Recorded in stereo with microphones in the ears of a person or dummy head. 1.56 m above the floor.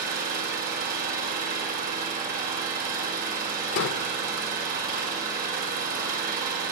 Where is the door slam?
60° left (ahead or behind), 1.1 m.